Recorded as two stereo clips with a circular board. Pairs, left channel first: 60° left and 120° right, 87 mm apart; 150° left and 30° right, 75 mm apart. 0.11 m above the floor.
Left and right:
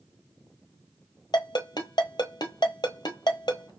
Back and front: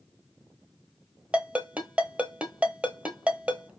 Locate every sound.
1.3 s a ringtone: 40° left, 1.0 m